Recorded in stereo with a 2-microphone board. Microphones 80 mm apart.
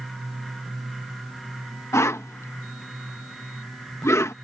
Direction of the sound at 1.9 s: 40° left (ahead or behind).